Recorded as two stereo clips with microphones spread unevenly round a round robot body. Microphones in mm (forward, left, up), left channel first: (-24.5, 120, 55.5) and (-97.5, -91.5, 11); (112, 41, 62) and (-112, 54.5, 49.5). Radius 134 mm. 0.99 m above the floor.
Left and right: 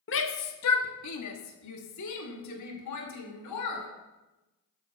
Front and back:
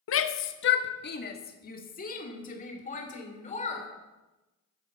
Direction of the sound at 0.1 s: 20° left.